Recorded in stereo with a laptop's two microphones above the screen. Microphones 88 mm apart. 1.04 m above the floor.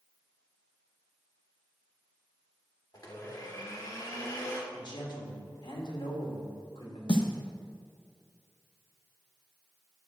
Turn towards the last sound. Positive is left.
turn(degrees=65)  # may be behind; listen again after turning